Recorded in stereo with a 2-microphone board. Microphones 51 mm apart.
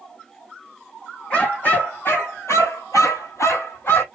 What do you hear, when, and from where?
1.3 s a dog barking: 30° left (ahead or behind), 1.6 m; by 4.0 s 45° left (ahead or behind), 1.4 m